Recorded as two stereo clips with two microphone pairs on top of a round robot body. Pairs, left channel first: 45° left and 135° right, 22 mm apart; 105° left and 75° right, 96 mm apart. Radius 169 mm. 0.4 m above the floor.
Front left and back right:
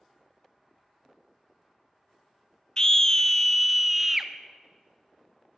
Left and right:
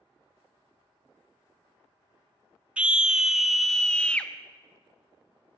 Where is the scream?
5° left, 1.0 m; by 4.3 s 150° left, 0.9 m.